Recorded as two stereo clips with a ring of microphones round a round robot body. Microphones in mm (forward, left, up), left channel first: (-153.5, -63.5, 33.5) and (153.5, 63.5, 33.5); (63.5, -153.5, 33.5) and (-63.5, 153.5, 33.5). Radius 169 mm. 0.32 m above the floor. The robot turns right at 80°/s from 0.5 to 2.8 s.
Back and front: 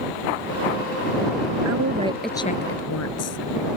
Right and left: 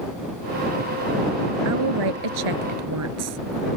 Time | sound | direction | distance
1.6 | a woman speaking | 65° left | ?